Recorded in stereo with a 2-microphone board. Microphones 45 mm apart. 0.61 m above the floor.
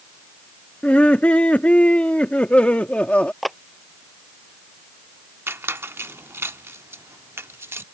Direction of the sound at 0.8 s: 30° left (ahead or behind).